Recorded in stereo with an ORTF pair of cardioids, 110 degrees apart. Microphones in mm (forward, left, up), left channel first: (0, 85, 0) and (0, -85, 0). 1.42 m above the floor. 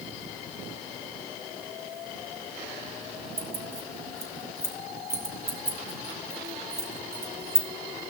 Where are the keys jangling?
15° right, 3 m.